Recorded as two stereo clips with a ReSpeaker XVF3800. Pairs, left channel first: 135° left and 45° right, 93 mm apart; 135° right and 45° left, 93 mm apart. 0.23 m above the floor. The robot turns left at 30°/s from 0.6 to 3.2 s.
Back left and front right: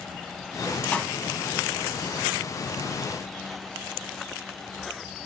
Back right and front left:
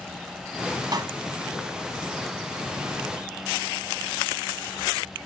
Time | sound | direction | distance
0.9 | a pop | 65° left | 1.1 m